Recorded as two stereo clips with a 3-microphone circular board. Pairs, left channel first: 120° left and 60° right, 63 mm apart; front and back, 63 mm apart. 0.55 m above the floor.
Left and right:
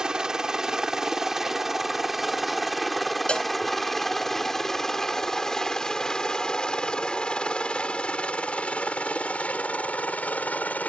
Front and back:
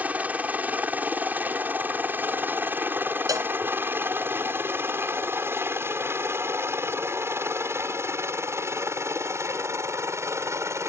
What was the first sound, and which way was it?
A helicopter, 130° right.